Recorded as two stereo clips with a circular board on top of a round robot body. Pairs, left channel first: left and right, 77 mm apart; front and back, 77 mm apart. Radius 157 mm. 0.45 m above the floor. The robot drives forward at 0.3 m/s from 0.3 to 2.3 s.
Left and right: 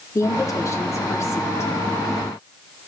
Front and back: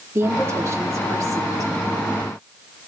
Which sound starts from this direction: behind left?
A woman speaking, at 0.1 s.